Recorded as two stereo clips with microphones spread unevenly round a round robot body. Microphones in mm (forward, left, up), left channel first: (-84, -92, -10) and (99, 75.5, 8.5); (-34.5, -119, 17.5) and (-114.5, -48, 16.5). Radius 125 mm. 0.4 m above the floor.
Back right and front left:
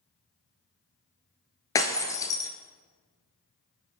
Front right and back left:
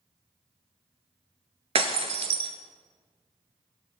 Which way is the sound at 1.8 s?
145° left.